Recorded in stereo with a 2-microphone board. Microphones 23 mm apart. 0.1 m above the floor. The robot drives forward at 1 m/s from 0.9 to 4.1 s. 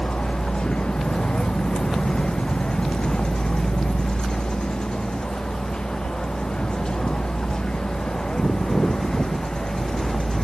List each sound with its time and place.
0.0 s a vehicle: 45° left (ahead or behind); by 10.4 s 40° left (ahead or behind)